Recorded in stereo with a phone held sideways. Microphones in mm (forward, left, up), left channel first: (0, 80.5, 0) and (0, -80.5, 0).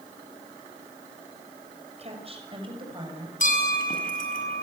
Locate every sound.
2.0 s a woman speaking: 40° right (ahead or behind), 6 m; by 3.3 s 25° right (ahead or behind), 7 m
3.4 s a bell: 60° left (ahead or behind), 6 m